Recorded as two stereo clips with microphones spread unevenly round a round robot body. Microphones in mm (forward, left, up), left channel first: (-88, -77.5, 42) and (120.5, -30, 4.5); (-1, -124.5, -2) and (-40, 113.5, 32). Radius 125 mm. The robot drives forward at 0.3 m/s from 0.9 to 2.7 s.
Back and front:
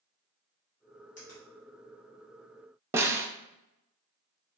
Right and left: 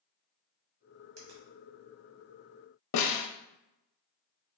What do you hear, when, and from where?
1.2 s a finger snap: 130° left, 1.8 m; by 1.4 s 135° left, 1.9 m
2.9 s a snare drum: 70° right, 0.6 m